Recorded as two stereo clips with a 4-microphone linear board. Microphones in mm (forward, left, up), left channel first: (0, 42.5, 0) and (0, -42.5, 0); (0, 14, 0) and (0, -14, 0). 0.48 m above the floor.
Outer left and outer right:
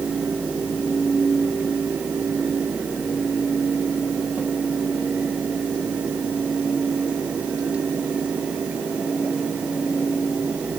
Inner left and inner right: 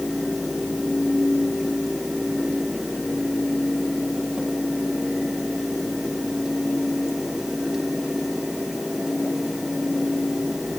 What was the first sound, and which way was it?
Only background noise.